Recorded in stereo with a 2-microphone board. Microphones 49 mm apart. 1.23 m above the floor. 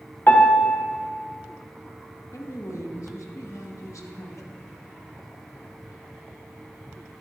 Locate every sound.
0.3 s a piano: 40° left (ahead or behind), 1.1 m
2.3 s a woman speaking: 75° left (ahead or behind), 1.3 m